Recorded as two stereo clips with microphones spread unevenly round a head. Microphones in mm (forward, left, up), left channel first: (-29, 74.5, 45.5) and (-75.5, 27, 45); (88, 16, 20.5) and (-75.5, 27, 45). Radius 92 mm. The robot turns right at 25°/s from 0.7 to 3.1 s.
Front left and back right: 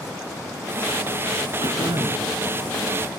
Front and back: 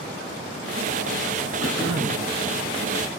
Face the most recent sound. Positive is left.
turn(degrees=-105)